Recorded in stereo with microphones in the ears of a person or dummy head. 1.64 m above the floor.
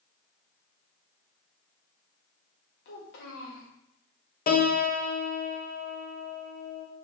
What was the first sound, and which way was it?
A child speaking, 60° left (ahead or behind).